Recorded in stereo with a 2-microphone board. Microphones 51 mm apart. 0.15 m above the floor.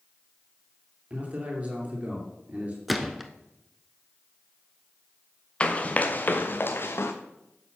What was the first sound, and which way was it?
A man speaking, 30° right (ahead or behind).